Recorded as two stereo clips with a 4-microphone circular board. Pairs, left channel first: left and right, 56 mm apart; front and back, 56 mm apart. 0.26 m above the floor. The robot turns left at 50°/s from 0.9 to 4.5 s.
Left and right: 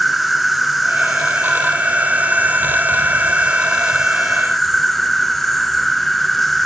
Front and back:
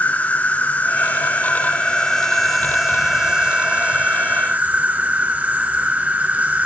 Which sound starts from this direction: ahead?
An insect, at 0.0 s.